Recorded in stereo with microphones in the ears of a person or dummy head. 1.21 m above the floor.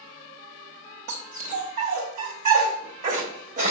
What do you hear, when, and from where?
1.1 s a dog barking: 45° right (ahead or behind), 1.1 m